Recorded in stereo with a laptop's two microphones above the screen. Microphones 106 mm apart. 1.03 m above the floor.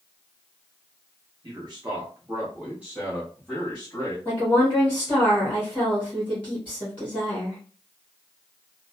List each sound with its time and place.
1.4 s a man speaking: 50° right (ahead or behind), 1.1 m; by 4.2 s 20° left (ahead or behind), 1.4 m
4.2 s a woman speaking: 20° left (ahead or behind), 1.0 m